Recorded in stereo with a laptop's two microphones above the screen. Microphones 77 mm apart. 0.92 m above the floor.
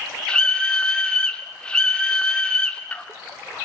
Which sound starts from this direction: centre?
A scream, at 0.3 s.